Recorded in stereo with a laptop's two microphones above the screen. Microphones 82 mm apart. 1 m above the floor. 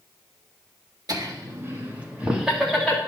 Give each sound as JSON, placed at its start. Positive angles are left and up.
{"t": 1.1, "sound": "laughter", "side_deg": -50, "distance_m": 1.8}